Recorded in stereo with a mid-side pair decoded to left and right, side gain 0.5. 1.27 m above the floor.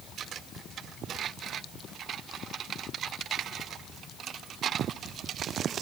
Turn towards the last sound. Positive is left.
No sound to turn to.